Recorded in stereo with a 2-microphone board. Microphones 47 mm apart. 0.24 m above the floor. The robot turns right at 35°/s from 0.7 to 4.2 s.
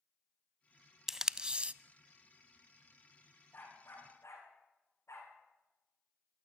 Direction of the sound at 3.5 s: 40° left (ahead or behind).